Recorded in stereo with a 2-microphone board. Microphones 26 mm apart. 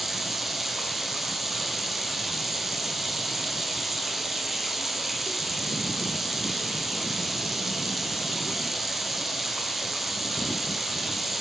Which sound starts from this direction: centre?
Running water, at 0.0 s.